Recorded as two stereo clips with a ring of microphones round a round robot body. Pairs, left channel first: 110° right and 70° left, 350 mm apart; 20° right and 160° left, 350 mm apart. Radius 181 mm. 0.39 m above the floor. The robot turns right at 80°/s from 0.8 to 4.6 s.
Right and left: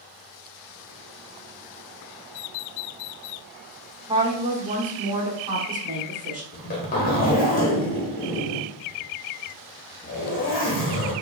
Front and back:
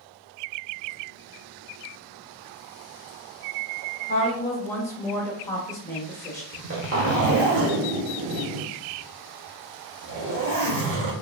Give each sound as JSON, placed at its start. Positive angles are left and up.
{"t": 4.1, "sound": "a woman speaking", "azimuth_deg": 5, "distance_m": 0.8}
{"t": 6.5, "sound": "a zipper", "azimuth_deg": -170, "distance_m": 0.9}